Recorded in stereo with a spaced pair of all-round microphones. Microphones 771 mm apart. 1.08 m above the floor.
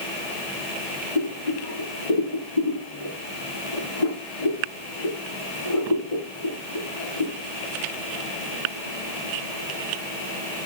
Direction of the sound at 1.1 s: 75° left (ahead or behind).